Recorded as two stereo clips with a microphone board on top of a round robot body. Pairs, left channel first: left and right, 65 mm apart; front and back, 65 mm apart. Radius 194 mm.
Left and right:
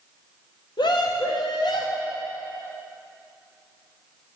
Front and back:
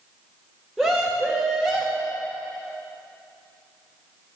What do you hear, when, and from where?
0.8 s a scream: 90° left, 1.7 m